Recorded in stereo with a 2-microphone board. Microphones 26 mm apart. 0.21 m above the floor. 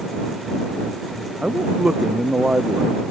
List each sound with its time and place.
1.4 s a man speaking: 35° right (ahead or behind)